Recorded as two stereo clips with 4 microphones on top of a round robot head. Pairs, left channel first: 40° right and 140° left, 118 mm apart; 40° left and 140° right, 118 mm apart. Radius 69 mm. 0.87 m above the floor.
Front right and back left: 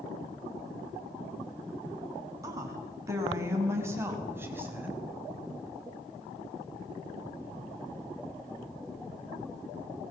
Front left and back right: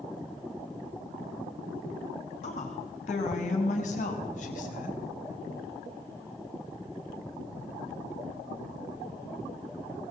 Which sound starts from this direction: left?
A woman speaking, at 2.4 s.